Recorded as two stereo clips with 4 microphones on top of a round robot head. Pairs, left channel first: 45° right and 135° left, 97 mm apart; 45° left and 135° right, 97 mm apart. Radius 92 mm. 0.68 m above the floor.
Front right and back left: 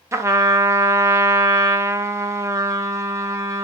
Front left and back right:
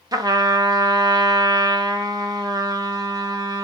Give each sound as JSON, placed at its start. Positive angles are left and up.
{"t": 0.1, "sound": "a trumpet", "azimuth_deg": -175, "distance_m": 0.6}